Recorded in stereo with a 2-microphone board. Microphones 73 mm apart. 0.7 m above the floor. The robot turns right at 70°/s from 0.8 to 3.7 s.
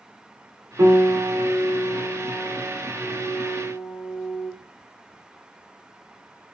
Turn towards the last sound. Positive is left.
turn(degrees=75)